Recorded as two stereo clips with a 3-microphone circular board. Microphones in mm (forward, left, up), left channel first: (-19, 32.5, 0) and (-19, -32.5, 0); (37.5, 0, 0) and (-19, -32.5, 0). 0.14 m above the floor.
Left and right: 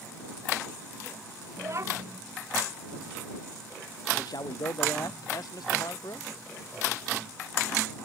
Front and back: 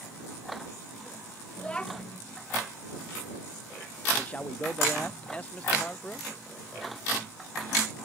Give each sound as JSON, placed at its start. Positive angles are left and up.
{"t": 1.6, "sound": "a child speaking", "azimuth_deg": -45}
{"t": 4.2, "sound": "a man speaking", "azimuth_deg": 100}